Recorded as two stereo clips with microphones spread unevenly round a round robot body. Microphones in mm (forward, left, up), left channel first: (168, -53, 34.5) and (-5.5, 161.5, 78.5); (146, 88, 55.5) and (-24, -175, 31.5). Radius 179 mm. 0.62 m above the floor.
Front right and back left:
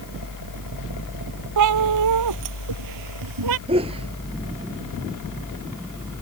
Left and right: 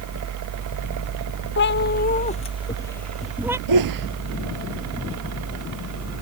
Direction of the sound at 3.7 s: 155° right.